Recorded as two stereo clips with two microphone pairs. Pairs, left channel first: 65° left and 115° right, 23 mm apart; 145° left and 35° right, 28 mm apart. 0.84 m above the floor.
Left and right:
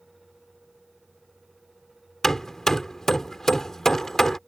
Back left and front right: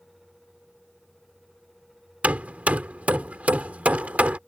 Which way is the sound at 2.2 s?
10° right.